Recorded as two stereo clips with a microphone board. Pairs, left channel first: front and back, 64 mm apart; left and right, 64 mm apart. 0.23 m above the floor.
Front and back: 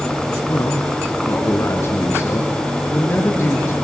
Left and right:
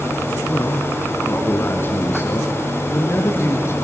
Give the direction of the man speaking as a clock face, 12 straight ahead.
11 o'clock.